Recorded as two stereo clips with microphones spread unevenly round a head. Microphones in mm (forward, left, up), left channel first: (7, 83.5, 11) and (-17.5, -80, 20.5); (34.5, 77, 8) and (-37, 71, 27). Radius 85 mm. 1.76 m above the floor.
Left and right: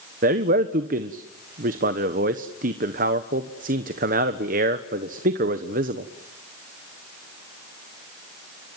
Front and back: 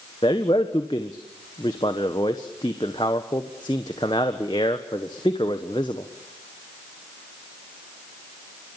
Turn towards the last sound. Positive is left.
turn(degrees=-55)